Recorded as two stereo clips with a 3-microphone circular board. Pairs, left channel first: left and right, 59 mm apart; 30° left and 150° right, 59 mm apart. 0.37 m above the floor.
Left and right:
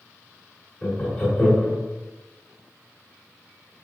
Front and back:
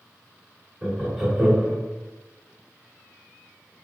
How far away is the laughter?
About 1.1 m.